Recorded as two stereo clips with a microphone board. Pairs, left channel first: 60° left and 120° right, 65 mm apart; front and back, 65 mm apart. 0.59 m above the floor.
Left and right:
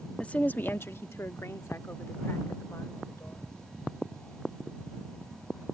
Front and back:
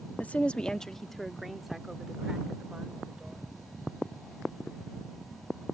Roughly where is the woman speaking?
Ahead.